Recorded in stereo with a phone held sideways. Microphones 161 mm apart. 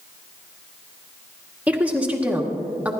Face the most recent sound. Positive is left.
turn(degrees=-10)  # may be behind; listen again after turning